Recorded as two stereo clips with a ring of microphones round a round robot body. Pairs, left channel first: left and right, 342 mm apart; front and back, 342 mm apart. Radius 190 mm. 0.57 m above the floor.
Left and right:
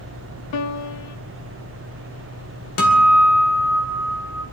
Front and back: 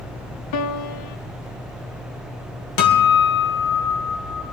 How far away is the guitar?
About 2 m.